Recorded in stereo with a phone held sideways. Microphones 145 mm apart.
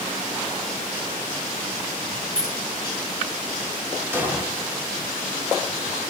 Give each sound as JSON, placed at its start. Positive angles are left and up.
{"t": 2.4, "sound": "keys jangling", "side_deg": -80, "distance_m": 3.5}
{"t": 4.1, "sound": "an explosion", "side_deg": -15, "distance_m": 2.5}